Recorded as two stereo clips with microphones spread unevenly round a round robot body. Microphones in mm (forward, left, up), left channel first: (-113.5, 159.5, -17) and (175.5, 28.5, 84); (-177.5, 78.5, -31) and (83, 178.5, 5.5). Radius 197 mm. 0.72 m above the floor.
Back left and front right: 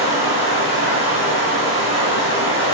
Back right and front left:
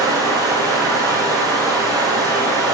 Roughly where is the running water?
Left.